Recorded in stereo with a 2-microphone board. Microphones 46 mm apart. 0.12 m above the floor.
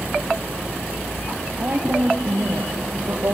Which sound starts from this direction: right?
A woman speaking, at 1.6 s.